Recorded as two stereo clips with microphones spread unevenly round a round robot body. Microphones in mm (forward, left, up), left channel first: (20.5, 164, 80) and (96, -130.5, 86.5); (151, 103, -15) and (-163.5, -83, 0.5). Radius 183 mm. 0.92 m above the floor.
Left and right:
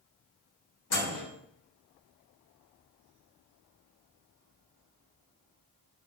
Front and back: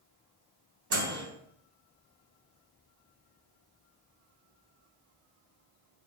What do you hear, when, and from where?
0.9 s a microwave: 155° left, 0.9 m